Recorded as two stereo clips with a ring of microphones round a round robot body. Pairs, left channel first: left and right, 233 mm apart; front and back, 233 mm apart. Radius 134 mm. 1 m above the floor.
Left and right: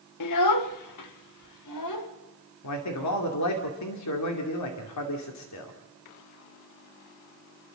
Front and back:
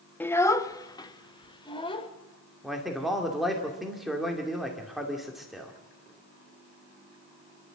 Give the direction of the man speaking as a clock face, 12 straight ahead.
9 o'clock.